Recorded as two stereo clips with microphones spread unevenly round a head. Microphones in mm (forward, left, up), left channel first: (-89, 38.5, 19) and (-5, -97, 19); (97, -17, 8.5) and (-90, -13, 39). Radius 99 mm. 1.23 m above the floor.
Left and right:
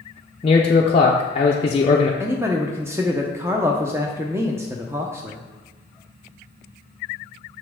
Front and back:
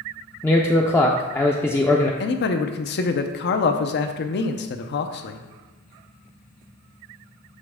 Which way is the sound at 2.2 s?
20° left.